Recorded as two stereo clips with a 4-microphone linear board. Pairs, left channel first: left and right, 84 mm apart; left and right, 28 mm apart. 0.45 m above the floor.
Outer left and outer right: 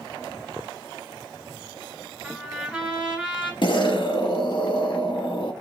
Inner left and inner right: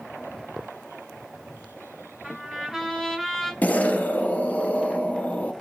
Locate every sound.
2.2 s a trumpet: centre (ahead or behind), 2 m
3.6 s an explosion: 65° left (ahead or behind), 0.8 m